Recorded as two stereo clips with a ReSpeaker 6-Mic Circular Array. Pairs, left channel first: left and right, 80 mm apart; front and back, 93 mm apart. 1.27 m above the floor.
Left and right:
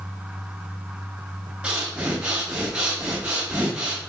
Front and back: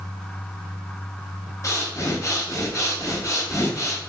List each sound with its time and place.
1.6 s breathing: 20° right, 0.6 m